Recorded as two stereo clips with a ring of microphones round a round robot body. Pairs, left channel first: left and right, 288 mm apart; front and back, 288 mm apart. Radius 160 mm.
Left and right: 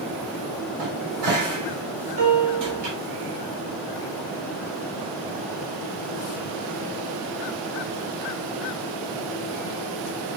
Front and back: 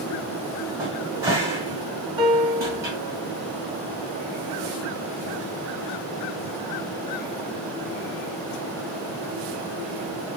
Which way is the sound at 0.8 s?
100° right.